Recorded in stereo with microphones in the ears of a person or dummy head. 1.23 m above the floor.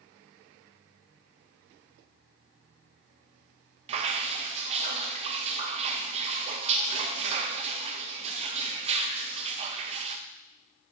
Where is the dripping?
40° right (ahead or behind), 0.7 m.